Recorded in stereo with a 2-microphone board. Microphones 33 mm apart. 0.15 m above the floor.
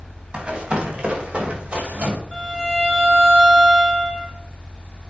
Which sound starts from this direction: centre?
A violin, at 2.3 s.